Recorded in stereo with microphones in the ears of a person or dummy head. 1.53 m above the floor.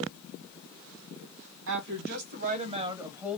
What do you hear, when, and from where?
1.7 s a woman speaking: 65° right (ahead or behind), 1.6 m; by 3.4 s 5° left (ahead or behind), 1.1 m